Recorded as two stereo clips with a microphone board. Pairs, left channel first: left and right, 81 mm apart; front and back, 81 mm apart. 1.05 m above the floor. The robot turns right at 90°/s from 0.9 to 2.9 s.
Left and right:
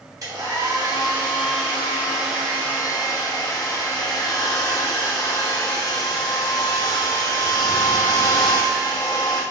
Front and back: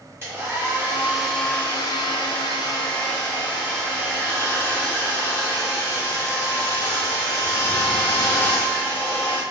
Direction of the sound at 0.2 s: 125° right.